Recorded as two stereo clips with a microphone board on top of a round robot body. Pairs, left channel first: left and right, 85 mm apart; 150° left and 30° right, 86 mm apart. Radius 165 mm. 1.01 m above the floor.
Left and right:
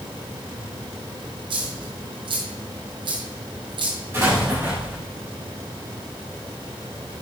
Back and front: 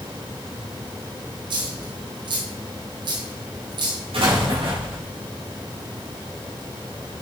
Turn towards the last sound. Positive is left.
turn(degrees=-25)